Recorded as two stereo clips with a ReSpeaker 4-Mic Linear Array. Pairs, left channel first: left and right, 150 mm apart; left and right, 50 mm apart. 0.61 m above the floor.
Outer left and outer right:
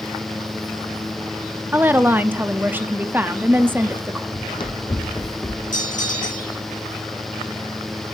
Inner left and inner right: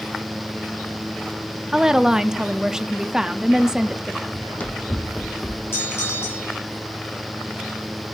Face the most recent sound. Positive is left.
turn(degrees=55)  # may be behind; listen again after turning